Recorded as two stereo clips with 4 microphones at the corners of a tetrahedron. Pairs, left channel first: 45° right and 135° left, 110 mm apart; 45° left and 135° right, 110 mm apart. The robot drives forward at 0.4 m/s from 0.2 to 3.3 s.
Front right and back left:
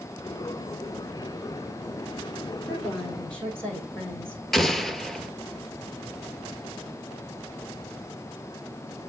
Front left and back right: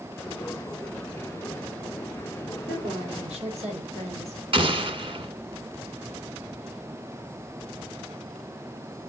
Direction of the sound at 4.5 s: 130° right.